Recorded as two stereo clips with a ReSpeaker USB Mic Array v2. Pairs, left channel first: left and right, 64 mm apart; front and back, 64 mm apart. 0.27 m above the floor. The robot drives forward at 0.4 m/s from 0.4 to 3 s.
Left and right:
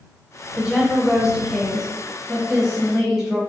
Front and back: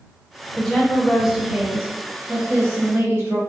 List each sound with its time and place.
0.6 s a woman speaking: 40° right, 0.9 m; by 3.4 s 165° right, 1.2 m